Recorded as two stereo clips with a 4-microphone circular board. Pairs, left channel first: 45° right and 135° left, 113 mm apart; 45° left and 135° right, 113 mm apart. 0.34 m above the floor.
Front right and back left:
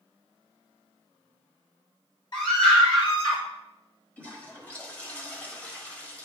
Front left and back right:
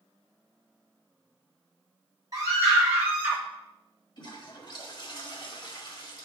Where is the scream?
85° right, 2 m; by 3.4 s 60° right, 2.0 m.